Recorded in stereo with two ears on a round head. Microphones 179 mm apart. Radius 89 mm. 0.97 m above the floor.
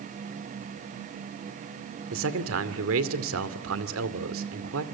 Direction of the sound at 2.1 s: 75° right (ahead or behind).